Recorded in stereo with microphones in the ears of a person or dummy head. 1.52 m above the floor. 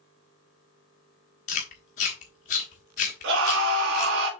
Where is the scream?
65° right (ahead or behind), 3 m.